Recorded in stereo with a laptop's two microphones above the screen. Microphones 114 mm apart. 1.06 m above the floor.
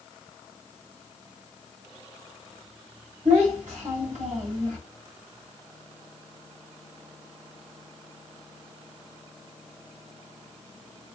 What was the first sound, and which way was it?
A child speaking, 85° right.